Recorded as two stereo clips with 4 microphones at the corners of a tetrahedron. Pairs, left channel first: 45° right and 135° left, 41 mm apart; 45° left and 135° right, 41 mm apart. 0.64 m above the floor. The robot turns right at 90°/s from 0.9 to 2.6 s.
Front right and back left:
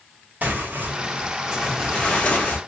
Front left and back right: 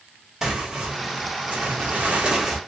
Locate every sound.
0.4 s tearing paper: 150° left, 1.0 m; by 2.6 s 55° right, 1.0 m